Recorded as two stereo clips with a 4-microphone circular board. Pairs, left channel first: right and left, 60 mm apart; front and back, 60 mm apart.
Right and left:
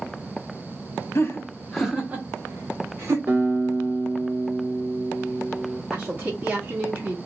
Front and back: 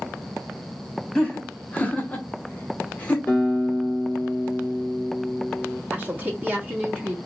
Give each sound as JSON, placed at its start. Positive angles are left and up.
{"t": 1.1, "sound": "laughter", "azimuth_deg": -75, "distance_m": 0.9}
{"t": 3.3, "sound": "a guitar", "azimuth_deg": 45, "distance_m": 1.4}
{"t": 5.9, "sound": "a woman speaking", "azimuth_deg": 140, "distance_m": 1.0}